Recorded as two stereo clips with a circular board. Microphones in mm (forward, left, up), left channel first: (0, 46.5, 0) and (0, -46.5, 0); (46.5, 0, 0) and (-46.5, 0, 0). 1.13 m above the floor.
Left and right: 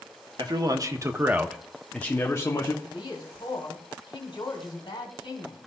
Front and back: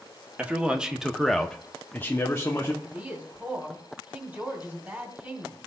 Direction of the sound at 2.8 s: 110° left.